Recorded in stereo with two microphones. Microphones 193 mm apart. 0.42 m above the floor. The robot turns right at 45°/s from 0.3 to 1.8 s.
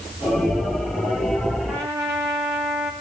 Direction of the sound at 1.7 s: 10° right (ahead or behind).